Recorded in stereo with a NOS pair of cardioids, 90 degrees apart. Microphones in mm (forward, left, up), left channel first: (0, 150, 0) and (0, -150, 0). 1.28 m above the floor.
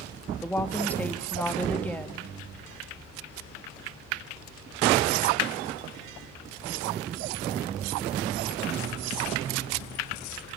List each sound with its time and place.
0.4 s a woman speaking: 5° left, 2 m